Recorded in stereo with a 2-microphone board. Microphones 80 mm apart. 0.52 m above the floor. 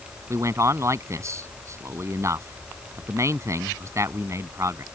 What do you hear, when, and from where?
0.3 s a man speaking: 40° right (ahead or behind)